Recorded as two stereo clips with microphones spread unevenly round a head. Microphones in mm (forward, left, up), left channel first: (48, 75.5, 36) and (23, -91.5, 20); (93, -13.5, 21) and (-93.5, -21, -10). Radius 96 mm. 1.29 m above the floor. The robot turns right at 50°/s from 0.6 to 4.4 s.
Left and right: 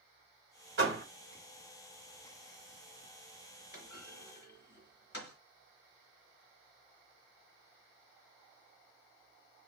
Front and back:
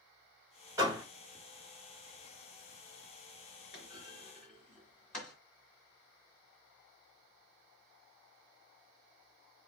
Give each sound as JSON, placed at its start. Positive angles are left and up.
{"t": 0.8, "sound": "a door slam", "azimuth_deg": -105, "distance_m": 2.5}
{"t": 3.7, "sound": "a clunk", "azimuth_deg": 50, "distance_m": 2.0}